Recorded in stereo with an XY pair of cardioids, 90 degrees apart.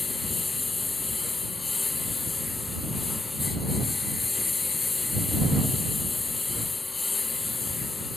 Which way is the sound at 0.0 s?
35° left.